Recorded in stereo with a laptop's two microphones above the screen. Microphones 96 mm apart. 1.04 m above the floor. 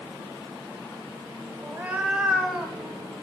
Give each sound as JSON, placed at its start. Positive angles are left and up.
{"t": 1.6, "sound": "a cat meowing", "side_deg": -20, "distance_m": 0.8}